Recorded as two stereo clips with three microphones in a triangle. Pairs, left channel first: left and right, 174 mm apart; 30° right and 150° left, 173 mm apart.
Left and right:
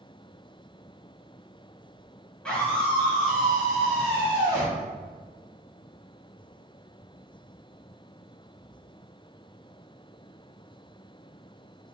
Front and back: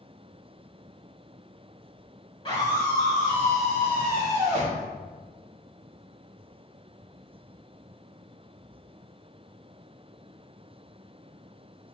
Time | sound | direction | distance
2.5 | a scream | 15° left | 1.7 m